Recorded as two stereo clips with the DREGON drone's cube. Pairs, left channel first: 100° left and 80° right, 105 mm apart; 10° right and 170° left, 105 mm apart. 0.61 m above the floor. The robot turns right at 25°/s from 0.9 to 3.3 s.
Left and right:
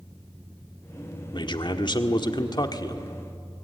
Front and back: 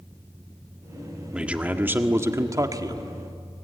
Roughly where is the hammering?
I don't hear hammering.